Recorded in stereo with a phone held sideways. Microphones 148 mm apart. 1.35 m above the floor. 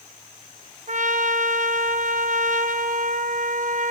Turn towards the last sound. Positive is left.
turn(degrees=-60)  # may be behind; listen again after turning